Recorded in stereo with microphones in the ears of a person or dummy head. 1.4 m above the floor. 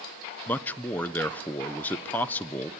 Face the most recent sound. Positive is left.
turn(degrees=10)  # may be behind; listen again after turning